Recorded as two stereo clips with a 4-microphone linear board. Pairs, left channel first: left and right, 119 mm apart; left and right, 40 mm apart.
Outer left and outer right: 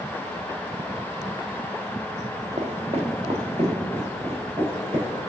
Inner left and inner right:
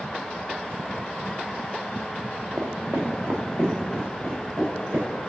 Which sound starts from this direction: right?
Footsteps, at 2.6 s.